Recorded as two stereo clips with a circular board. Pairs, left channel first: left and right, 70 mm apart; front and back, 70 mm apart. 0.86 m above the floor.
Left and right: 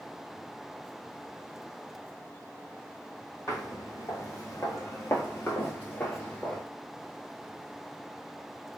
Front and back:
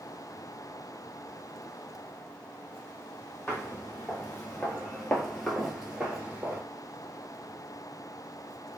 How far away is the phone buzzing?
I don't hear a phone buzzing.